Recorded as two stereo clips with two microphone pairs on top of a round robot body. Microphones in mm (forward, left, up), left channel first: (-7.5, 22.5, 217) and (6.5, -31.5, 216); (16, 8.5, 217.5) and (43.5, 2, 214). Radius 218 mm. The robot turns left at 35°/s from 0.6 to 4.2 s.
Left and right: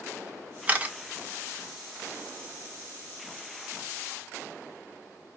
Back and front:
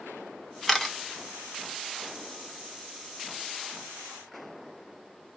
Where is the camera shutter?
105° right, 1.4 m; by 0.9 s 115° right, 1.4 m.